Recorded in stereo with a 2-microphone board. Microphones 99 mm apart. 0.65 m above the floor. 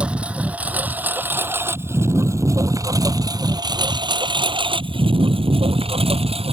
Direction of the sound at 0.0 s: 10° right (ahead or behind).